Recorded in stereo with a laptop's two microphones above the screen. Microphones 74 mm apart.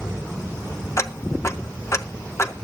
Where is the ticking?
40° left (ahead or behind), 1.1 m.